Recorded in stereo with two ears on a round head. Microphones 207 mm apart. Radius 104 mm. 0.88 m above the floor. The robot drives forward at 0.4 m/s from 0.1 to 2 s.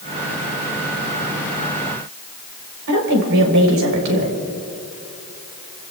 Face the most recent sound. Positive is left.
turn(degrees=-85)